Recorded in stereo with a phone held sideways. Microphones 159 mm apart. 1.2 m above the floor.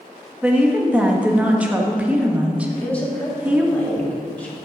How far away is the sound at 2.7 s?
About 2.5 m.